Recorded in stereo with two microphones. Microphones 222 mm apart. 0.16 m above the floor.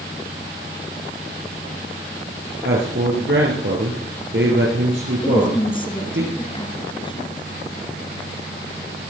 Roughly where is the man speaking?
Right.